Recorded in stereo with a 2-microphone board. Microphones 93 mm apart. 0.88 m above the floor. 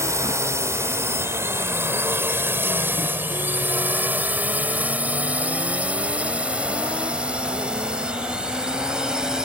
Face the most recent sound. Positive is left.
turn(degrees=-10)  # may be behind; listen again after turning